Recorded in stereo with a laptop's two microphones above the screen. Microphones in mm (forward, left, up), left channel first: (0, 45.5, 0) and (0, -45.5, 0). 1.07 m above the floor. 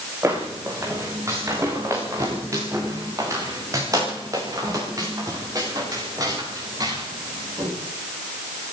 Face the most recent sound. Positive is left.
turn(degrees=-40)  # may be behind; listen again after turning